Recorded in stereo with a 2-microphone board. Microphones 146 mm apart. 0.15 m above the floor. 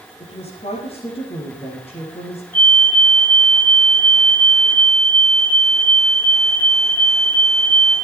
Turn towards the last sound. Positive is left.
turn(degrees=75)  # may be behind; listen again after turning